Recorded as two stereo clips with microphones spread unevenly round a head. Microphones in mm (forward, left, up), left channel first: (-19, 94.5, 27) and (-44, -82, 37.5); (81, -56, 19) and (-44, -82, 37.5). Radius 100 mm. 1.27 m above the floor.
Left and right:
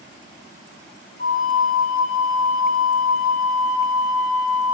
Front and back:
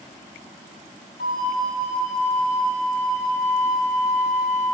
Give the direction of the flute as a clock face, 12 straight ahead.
11 o'clock.